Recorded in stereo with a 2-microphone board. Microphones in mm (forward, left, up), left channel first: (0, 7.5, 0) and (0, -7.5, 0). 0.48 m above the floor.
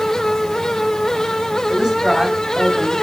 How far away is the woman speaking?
About 3 m.